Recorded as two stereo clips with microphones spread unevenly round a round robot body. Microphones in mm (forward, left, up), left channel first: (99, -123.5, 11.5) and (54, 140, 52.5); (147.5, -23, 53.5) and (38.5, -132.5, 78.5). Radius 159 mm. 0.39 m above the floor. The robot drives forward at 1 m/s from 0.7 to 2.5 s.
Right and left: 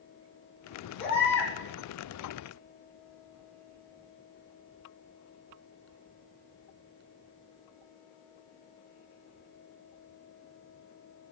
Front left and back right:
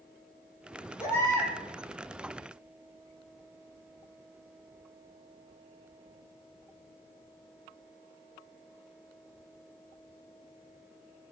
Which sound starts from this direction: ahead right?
A baby crying, at 1.0 s.